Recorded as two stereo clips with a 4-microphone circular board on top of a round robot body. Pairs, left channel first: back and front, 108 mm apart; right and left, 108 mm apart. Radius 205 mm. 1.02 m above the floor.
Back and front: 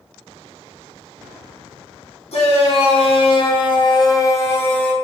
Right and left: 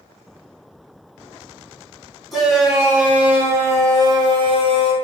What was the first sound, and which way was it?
A shout, straight behind.